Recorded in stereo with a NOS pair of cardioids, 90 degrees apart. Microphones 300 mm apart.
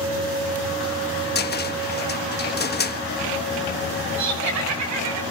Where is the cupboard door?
35° left, 1.4 m.